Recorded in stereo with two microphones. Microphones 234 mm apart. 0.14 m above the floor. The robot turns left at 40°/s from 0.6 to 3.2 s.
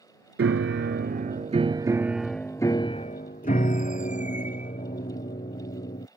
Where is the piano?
115° right; by 6.1 s 145° left.